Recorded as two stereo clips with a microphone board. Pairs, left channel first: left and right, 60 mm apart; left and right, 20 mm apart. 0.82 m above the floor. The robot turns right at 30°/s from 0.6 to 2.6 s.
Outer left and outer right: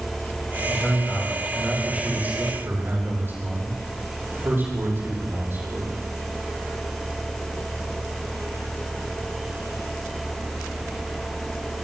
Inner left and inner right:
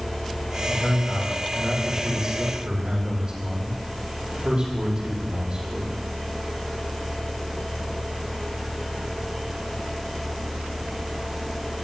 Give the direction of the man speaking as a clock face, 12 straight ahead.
7 o'clock.